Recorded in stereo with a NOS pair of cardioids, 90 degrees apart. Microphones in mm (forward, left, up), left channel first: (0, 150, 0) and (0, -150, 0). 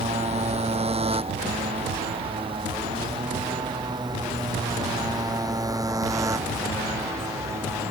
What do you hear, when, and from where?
0.0 s a motorcycle: 20° right; by 7.9 s 10° right